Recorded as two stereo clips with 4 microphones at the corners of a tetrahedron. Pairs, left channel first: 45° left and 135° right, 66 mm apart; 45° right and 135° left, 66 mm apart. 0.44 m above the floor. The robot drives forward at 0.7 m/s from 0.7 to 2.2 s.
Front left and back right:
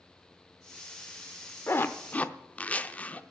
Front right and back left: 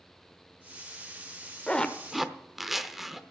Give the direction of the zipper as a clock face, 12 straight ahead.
11 o'clock.